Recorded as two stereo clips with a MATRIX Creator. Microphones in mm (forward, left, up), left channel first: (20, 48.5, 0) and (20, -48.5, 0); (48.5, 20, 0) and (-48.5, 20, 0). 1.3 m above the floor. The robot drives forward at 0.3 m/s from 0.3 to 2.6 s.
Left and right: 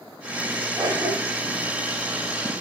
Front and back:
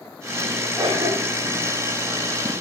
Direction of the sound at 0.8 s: 150° right.